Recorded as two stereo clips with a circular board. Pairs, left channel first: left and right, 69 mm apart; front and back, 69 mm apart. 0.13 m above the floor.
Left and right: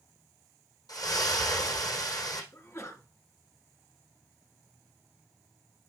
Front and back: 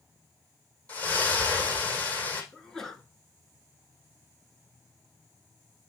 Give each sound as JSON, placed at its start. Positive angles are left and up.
{"t": 0.9, "sound": "a splash", "azimuth_deg": 70, "distance_m": 3.5}
{"t": 2.5, "sound": "a sneeze", "azimuth_deg": 80, "distance_m": 1.7}